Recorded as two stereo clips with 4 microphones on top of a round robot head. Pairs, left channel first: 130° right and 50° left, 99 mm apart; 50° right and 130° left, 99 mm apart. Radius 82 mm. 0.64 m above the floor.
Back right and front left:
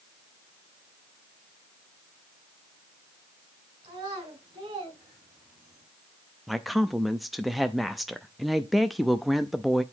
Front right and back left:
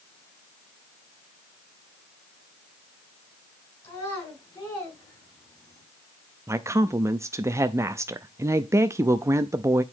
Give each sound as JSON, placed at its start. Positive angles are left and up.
{"t": 3.8, "sound": "a child speaking", "azimuth_deg": 5, "distance_m": 5.5}
{"t": 6.5, "sound": "a woman speaking", "azimuth_deg": 140, "distance_m": 0.5}